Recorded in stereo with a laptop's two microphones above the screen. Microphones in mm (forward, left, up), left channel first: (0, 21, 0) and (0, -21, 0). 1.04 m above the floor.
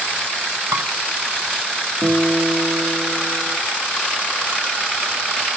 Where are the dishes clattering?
90° right, 4 m.